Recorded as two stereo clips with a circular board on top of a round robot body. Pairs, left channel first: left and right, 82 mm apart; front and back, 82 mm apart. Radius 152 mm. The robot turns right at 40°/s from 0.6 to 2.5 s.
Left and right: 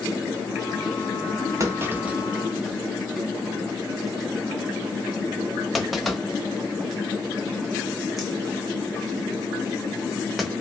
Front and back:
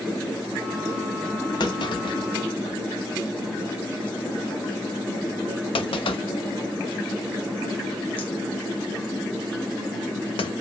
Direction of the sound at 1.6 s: 35° right.